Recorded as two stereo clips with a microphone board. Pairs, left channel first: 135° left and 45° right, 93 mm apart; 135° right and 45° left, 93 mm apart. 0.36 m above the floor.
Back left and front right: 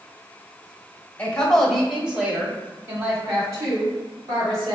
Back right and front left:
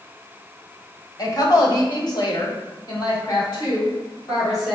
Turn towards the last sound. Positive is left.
turn(degrees=-90)